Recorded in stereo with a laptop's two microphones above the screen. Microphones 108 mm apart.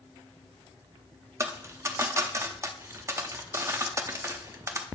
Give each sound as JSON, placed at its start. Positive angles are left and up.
{"t": 1.4, "sound": "a dropped coin", "side_deg": -25, "distance_m": 0.6}